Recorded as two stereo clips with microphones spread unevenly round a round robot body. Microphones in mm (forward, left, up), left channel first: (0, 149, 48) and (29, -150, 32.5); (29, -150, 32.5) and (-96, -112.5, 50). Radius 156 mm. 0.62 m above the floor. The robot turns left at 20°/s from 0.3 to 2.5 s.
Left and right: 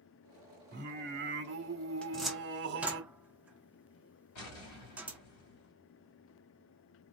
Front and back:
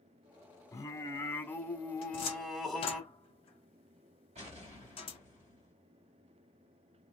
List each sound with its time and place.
0.7 s singing: 55° right, 1.2 m; by 3.0 s 90° right, 1.2 m
2.0 s a cupboard door: 10° left, 0.7 m; by 5.2 s straight ahead, 0.7 m
4.3 s an explosion: 115° left, 2 m